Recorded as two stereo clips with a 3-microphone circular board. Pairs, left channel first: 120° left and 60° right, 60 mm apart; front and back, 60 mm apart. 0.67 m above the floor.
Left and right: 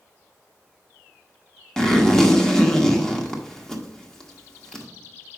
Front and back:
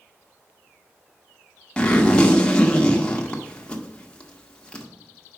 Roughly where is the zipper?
Ahead left.